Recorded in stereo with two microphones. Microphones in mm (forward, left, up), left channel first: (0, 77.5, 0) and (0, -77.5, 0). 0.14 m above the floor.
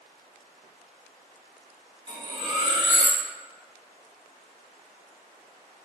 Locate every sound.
2.1 s cutlery clinking: 30° right (ahead or behind), 1.2 m